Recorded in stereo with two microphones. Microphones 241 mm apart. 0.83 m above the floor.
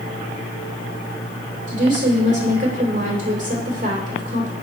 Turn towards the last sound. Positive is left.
turn(degrees=-30)  # may be behind; listen again after turning